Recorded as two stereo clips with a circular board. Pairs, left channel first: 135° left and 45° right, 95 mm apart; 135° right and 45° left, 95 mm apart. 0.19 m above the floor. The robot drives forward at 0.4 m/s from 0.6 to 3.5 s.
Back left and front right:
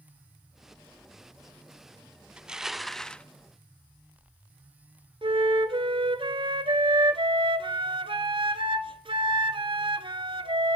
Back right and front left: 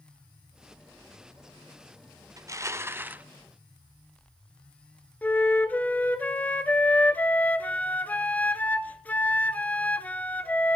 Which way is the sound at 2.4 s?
30° left.